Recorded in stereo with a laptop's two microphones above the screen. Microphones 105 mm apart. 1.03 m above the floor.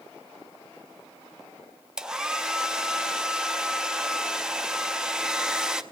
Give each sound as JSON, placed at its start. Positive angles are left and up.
{"t": 2.0, "sound": "a hair dryer", "side_deg": -5, "distance_m": 0.5}